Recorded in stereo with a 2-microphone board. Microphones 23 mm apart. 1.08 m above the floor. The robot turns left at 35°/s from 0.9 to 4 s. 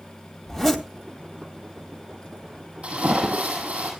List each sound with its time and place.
0.5 s a zipper: 5° right (ahead or behind), 2 m
2.8 s a splash: 65° right, 7 m; by 3.9 s 100° right, 7 m